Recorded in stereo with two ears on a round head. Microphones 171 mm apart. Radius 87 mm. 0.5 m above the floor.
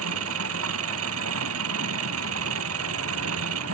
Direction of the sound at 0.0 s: 75° right (ahead or behind).